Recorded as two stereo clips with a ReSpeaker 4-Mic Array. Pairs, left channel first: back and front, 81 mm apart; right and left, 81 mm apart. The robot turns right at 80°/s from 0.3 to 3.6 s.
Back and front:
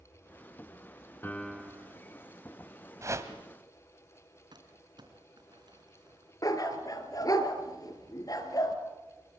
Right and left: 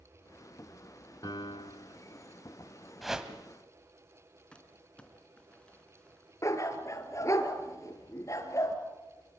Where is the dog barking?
140° right, 2.5 m.